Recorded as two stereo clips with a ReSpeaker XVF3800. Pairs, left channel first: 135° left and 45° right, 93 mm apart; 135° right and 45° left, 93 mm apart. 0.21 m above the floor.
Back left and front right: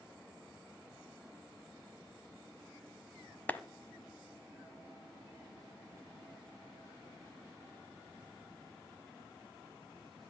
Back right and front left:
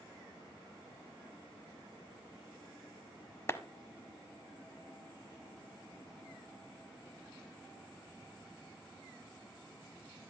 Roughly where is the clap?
Behind.